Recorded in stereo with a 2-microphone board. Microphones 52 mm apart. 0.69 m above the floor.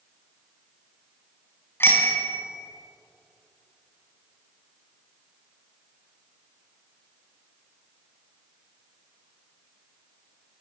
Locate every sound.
1.8 s a bicycle bell: 45° left (ahead or behind), 4.5 m